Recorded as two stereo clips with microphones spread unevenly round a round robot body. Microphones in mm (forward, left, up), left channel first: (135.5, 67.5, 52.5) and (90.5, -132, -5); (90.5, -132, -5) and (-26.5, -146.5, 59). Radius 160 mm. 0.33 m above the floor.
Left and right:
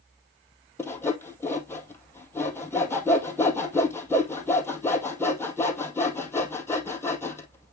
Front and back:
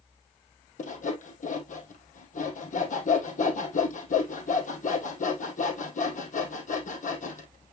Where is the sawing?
Straight ahead, 2 m.